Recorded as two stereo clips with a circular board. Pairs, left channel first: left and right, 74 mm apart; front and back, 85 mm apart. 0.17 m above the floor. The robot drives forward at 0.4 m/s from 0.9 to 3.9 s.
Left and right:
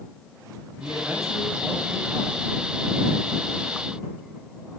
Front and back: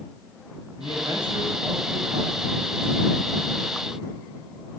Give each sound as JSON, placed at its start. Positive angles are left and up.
{"t": 0.8, "sound": "a man speaking", "azimuth_deg": -175, "distance_m": 8.5}